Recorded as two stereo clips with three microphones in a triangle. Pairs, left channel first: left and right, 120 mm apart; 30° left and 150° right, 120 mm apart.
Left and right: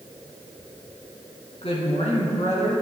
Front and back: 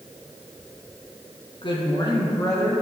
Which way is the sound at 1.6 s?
65° left.